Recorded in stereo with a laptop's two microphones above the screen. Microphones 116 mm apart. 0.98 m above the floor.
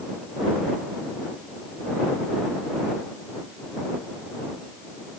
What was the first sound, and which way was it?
Only background noise.